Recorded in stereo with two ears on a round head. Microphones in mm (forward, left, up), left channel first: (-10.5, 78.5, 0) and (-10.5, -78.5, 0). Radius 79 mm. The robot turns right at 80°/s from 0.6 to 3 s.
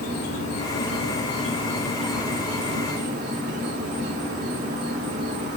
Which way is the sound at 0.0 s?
60° left.